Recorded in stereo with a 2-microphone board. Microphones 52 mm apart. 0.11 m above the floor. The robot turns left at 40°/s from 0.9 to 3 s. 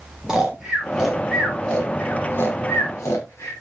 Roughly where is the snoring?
Centre.